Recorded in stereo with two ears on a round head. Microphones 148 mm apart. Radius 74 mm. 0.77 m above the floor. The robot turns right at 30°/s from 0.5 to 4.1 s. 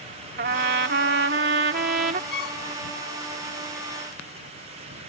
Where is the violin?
65° left (ahead or behind); by 2.6 s 60° left (ahead or behind).